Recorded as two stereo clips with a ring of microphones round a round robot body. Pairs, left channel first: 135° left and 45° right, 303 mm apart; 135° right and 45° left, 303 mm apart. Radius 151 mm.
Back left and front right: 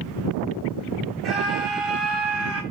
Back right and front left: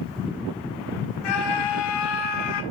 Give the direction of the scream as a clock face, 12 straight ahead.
4 o'clock.